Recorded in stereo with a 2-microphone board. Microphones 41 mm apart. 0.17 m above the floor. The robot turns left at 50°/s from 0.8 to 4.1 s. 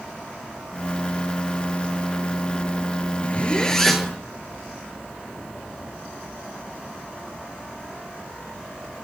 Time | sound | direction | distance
3.2 | a zipper | 40° left | 0.7 m